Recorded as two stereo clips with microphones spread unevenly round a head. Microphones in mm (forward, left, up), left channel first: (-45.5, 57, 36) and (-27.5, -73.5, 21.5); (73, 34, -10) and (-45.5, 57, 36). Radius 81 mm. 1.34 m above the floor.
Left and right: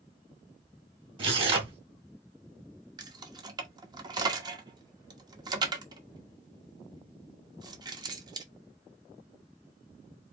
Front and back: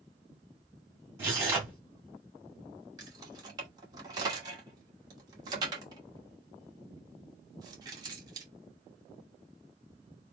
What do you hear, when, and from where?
1.2 s tearing paper: 135° right, 2 m
3.0 s keys jangling: 145° right, 1.1 m